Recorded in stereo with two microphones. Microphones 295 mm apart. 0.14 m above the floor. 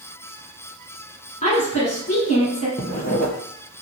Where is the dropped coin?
I don't hear a dropped coin.